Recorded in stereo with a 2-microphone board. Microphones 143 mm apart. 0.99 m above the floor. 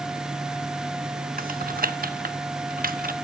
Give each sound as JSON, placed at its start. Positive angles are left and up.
{"t": 1.4, "sound": "typing on a keyboard", "side_deg": -85, "distance_m": 1.0}